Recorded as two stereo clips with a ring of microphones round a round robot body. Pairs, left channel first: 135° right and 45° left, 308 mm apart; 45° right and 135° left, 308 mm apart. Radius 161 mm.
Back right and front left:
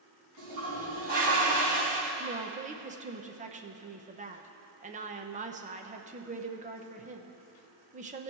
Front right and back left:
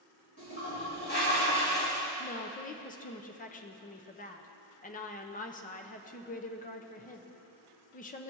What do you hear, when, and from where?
0.4 s a toilet flushing: 15° left, 3.5 m
2.2 s a woman speaking: straight ahead, 0.7 m